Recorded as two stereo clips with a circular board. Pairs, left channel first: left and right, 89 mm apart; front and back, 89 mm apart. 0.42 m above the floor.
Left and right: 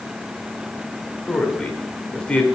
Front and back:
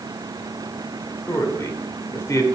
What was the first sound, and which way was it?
A man speaking, 20° left.